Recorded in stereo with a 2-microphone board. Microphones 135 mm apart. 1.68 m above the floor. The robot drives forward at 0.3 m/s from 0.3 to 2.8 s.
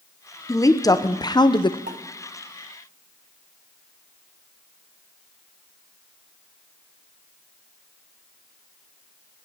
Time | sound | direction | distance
0.5 | a woman speaking | 25° left (ahead or behind) | 0.9 m
1.9 | a pop | 70° right (ahead or behind) | 1.2 m